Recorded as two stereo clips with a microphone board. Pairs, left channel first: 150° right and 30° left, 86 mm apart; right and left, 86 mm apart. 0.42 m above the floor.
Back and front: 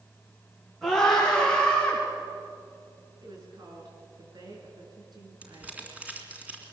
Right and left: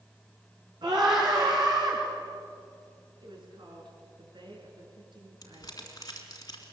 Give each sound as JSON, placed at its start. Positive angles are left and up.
{"t": 0.8, "sound": "a scream", "azimuth_deg": 115, "distance_m": 5.5}
{"t": 3.2, "sound": "a woman speaking", "azimuth_deg": 65, "distance_m": 6.0}
{"t": 5.4, "sound": "crumpling", "azimuth_deg": -45, "distance_m": 3.0}